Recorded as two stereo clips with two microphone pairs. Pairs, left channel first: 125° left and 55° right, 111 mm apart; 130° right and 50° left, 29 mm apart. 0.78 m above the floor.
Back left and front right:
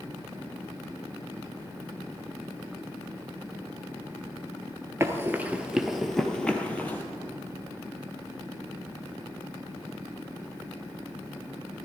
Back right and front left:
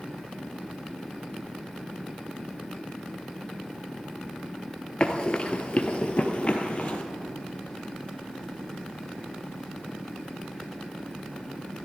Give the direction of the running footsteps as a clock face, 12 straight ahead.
3 o'clock.